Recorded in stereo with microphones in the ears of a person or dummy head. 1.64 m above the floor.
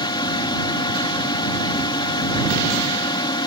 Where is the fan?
25° left (ahead or behind).